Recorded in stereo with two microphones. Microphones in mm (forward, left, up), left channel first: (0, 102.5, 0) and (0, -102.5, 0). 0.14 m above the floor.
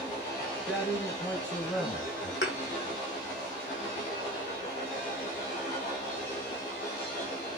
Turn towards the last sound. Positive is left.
turn(degrees=80)